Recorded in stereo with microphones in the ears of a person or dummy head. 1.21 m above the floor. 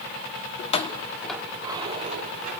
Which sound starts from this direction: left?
Keys jangling, at 0.6 s.